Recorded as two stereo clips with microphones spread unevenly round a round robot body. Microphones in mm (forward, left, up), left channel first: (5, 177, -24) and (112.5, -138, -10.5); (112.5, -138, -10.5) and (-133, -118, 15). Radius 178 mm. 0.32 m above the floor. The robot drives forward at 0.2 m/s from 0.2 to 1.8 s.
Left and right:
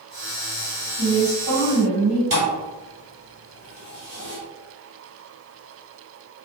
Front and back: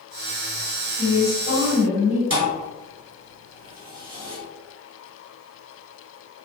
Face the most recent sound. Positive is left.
turn(degrees=-145)